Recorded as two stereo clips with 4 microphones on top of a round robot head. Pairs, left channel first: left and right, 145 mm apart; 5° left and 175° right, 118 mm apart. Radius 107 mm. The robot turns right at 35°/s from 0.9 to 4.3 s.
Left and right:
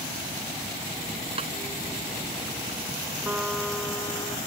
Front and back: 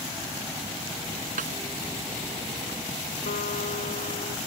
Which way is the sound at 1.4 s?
150° right.